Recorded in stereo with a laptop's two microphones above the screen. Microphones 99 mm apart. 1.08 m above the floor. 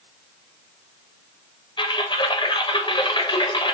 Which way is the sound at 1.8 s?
50° left (ahead or behind).